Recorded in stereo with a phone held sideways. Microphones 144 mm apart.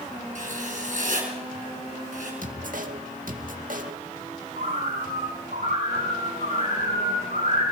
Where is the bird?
85° right, 10 m.